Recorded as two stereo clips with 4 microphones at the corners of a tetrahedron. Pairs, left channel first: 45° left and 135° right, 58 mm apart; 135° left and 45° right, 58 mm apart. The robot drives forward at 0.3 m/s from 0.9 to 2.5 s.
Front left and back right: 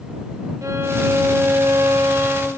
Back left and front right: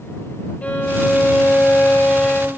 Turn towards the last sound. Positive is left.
turn(degrees=-165)